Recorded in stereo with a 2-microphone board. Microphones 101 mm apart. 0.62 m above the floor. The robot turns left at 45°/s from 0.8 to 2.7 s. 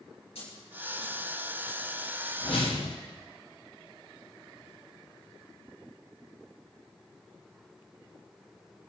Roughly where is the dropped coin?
Left.